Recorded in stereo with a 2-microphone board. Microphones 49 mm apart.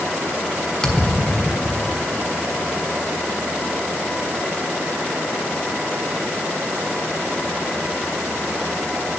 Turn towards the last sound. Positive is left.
turn(degrees=15)  # may be behind; listen again after turning